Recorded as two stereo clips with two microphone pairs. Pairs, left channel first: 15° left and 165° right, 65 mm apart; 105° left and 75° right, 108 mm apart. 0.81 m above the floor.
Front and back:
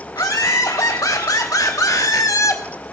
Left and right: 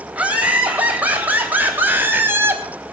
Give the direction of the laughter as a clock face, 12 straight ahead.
12 o'clock.